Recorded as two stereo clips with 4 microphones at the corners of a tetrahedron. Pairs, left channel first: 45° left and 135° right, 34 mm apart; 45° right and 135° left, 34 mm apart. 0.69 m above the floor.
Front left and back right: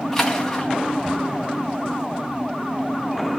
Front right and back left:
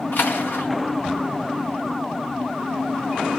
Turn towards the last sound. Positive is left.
turn(degrees=-35)